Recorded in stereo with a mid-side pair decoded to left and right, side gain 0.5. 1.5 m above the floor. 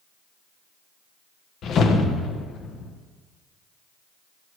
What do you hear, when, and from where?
1.6 s a whoosh: 60° left, 0.8 m